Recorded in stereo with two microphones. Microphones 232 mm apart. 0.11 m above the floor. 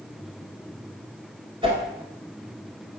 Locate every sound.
1.6 s a whoosh: 20° right (ahead or behind), 1.5 m